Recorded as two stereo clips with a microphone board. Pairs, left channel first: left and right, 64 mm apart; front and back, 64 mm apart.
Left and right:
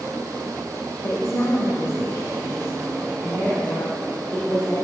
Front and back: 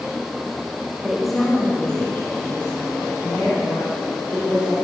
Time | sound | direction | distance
1.0 | a woman speaking | 105° left | 1.4 m